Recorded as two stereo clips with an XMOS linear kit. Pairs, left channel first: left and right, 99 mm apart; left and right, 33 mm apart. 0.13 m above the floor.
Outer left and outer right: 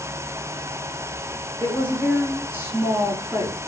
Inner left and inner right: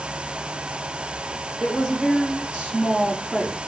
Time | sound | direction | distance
1.6 | a woman speaking | 15° right (ahead or behind) | 1.6 m